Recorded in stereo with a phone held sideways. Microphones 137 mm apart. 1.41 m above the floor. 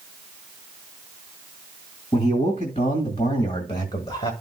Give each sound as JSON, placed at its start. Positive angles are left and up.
{"t": 2.1, "sound": "a man speaking", "side_deg": 65, "distance_m": 2.0}